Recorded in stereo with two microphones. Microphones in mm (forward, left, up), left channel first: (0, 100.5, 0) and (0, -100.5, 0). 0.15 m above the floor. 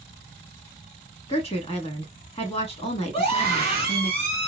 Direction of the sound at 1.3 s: 30° left (ahead or behind).